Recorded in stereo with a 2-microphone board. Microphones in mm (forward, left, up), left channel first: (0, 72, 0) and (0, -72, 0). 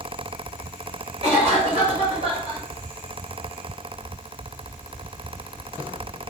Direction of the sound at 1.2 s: 45° right (ahead or behind).